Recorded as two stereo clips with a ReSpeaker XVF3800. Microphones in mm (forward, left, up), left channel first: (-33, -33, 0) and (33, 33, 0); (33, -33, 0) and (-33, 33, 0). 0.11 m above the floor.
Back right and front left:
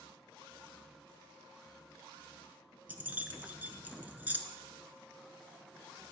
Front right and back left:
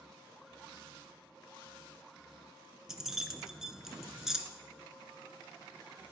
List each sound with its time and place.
2.9 s keys jangling: 60° left, 0.7 m